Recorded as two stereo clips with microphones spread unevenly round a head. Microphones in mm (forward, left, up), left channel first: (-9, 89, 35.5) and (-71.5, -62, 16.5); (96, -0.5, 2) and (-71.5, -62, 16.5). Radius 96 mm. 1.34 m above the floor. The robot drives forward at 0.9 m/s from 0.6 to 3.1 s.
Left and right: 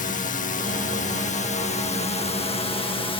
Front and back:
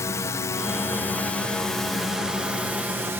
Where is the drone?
90° left; by 3.2 s 120° left.